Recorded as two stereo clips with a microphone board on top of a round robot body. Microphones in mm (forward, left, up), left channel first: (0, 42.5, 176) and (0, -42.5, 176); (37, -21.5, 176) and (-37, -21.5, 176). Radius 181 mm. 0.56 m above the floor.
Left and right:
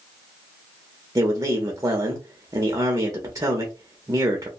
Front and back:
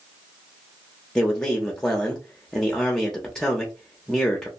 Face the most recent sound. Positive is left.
turn(degrees=-75)